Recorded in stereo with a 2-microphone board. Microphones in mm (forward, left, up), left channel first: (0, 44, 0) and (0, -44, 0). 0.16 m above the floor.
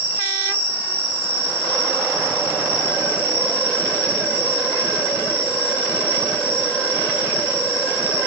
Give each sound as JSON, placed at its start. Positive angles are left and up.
{"t": 0.0, "sound": "an insect", "side_deg": 25, "distance_m": 4.0}